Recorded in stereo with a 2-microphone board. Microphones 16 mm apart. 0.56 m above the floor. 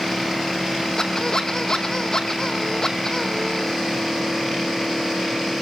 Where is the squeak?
35° left (ahead or behind), 1.6 m.